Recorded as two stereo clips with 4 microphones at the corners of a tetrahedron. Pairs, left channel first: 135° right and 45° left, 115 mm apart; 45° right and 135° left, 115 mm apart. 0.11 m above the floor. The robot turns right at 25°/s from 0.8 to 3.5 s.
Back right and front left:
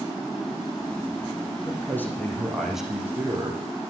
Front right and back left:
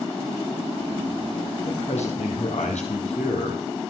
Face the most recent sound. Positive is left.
turn(degrees=-25)